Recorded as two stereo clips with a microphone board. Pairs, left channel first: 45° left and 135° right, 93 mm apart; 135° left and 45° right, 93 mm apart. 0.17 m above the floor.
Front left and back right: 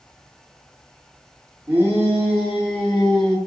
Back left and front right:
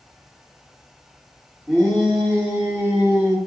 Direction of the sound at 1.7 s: 130° right.